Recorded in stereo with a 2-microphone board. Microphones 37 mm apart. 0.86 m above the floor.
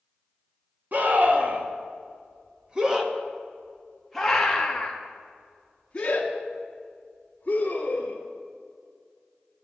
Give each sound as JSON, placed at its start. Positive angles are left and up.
{"t": 0.9, "sound": "a scream", "side_deg": -50, "distance_m": 1.8}